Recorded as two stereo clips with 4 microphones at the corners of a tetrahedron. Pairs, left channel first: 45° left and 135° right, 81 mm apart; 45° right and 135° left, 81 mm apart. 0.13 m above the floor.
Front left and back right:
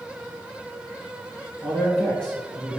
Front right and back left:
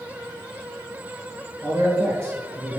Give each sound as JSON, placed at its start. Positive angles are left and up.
{"t": 1.6, "sound": "a man speaking", "azimuth_deg": 120, "distance_m": 1.4}